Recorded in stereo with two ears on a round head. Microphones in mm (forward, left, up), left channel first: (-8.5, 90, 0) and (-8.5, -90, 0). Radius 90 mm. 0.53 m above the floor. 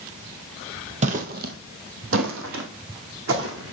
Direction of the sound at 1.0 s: 35° right (ahead or behind).